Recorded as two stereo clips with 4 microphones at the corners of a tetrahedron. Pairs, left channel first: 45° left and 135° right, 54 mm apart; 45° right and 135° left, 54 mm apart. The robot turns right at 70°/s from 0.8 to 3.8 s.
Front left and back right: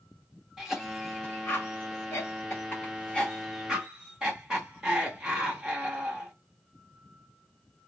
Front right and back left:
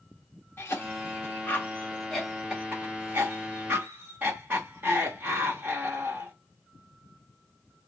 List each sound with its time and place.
0.6 s a cough: 60° right, 1.3 m; by 6.3 s 150° left, 1.3 m